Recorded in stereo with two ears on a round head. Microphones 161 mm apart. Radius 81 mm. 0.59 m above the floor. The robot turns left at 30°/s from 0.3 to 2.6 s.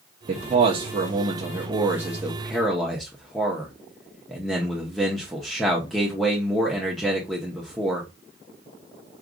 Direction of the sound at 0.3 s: 115° right.